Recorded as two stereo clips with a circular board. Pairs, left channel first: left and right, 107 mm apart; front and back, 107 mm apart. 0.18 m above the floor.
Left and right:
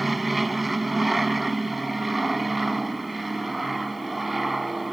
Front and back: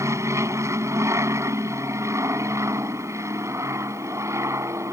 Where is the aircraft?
Straight behind.